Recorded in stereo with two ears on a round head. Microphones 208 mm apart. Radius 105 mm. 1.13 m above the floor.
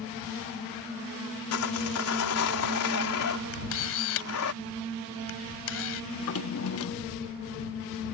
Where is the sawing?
75° left (ahead or behind).